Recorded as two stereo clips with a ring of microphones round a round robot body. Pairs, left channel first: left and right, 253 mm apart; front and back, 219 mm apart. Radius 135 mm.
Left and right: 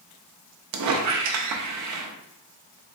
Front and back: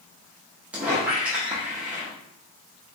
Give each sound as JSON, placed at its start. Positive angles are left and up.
{"t": 0.7, "sound": "a squeak", "azimuth_deg": -95, "distance_m": 0.5}